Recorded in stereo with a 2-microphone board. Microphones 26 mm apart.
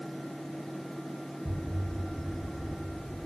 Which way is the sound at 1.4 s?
25° right (ahead or behind).